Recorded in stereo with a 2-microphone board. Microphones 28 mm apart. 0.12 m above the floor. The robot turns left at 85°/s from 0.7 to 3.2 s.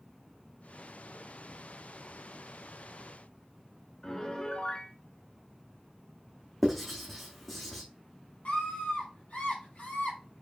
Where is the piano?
30° left (ahead or behind), 1.2 m.